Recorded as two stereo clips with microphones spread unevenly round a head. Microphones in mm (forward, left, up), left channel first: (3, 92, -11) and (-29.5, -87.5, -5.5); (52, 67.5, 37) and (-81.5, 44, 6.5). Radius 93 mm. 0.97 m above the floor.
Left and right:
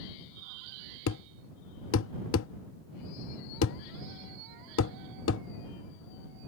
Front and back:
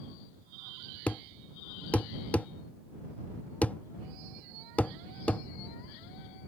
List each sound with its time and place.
1.1 s a thud: 85° left